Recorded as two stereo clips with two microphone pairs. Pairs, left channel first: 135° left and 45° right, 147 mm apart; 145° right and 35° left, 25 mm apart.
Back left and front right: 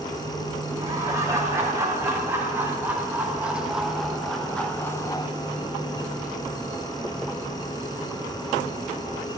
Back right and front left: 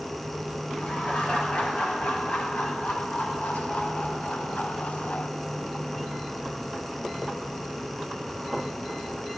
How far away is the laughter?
About 3 m.